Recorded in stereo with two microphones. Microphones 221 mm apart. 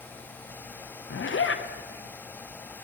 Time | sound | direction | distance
1.1 | a zipper | 65° left (ahead or behind) | 0.6 m